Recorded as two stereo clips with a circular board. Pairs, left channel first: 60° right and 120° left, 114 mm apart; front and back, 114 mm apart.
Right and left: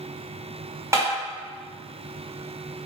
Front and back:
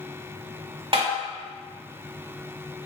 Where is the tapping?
175° left, 1.3 m.